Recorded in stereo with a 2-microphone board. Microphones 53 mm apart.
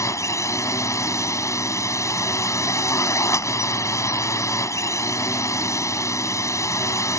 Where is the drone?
80° left.